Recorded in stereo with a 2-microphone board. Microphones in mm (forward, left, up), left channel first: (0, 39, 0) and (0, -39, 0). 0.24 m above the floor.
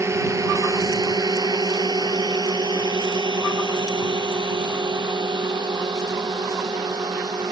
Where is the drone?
40° right (ahead or behind); by 7.5 s 65° right (ahead or behind).